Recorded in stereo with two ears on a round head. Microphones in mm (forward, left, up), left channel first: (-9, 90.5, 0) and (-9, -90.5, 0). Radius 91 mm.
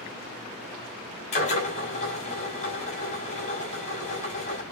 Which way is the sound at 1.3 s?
35° left (ahead or behind).